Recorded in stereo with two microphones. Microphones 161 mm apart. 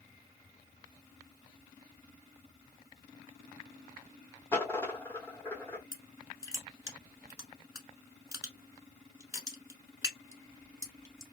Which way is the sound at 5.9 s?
20° right (ahead or behind).